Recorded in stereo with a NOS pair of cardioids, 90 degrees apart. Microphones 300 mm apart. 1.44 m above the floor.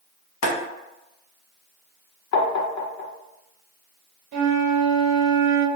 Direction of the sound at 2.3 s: 70° left.